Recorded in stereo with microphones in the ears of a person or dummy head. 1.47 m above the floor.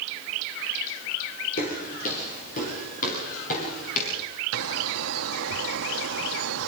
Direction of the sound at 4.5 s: 85° right.